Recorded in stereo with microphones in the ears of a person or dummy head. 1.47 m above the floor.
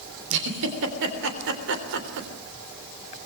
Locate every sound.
0.3 s a giggle: 70° right (ahead or behind), 3 m